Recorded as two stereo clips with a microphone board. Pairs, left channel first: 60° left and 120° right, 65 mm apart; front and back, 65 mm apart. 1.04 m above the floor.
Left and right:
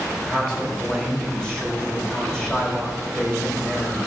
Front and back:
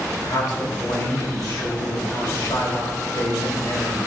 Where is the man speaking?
20° right, 4.5 m.